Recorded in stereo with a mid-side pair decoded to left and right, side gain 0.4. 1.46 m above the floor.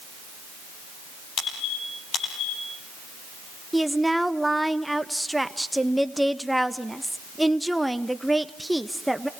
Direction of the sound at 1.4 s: 65° left.